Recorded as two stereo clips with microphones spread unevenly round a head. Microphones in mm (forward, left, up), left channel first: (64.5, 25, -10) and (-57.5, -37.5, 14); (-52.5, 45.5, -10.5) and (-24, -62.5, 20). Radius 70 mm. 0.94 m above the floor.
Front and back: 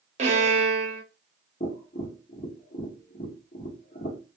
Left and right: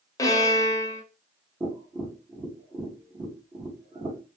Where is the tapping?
Straight ahead, 1.2 m.